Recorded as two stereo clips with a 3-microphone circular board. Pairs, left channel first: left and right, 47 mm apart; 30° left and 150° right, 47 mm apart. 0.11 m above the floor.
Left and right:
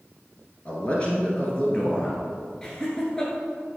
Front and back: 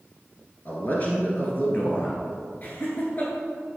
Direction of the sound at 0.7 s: 45° left.